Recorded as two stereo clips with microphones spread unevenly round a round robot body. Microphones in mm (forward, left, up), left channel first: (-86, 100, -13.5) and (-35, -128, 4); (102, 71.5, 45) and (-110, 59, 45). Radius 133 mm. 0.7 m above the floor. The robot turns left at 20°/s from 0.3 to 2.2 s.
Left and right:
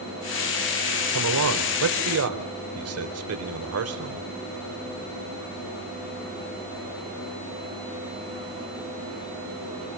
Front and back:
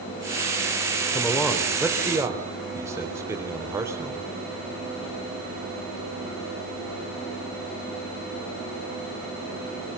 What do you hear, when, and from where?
1.1 s a man speaking: 75° right, 3.5 m; by 4.3 s 100° right, 3.5 m